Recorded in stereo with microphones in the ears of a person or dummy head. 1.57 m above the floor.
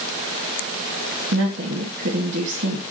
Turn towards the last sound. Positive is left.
turn(degrees=-65)  # may be behind; listen again after turning